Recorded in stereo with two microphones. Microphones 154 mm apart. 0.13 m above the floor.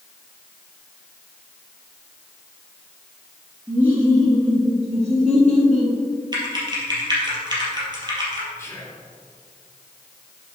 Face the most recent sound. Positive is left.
turn(degrees=15)  # may be behind; listen again after turning